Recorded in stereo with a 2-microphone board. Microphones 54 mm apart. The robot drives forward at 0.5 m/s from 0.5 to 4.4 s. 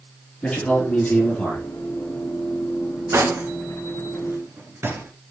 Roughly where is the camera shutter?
No camera shutter in this recording.